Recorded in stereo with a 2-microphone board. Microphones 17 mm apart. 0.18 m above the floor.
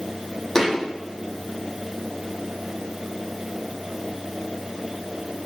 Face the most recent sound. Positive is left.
turn(degrees=15)  # may be behind; listen again after turning